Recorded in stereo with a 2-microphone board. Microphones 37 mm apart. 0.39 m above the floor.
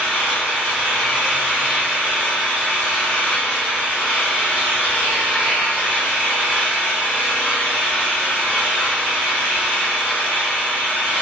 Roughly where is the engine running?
Left.